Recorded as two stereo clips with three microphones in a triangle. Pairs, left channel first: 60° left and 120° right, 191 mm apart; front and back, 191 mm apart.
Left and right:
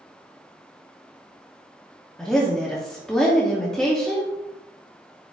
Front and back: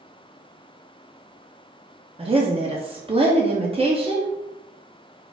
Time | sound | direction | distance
2.2 | a woman speaking | 145° left | 0.7 m